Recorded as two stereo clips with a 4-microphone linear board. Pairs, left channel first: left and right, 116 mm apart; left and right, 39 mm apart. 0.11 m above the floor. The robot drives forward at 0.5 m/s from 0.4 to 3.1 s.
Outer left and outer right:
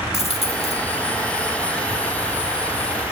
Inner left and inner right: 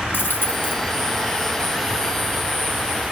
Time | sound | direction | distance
0.1 | a dropped coin | 65° left (ahead or behind) | 1.1 m